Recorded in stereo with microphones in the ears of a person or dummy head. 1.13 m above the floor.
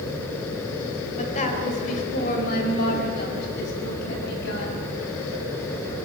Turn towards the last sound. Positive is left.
turn(degrees=65)  # may be behind; listen again after turning